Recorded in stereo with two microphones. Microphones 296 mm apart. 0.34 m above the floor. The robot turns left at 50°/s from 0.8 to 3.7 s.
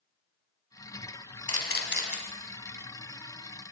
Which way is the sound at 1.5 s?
55° left (ahead or behind).